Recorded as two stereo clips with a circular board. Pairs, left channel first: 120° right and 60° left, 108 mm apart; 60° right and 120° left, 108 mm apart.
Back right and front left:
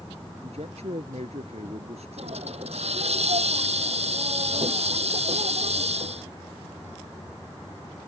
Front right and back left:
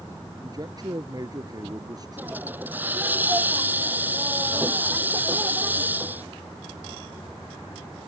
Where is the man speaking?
70° left.